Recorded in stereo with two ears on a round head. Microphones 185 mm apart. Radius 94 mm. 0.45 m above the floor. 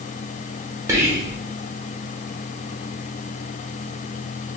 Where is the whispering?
15° right (ahead or behind), 1.0 m.